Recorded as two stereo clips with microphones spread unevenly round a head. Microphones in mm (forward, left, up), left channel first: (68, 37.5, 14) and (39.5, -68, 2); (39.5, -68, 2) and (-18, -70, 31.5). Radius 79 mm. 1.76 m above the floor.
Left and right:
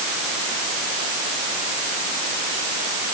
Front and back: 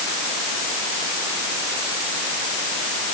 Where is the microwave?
No microwave in this recording.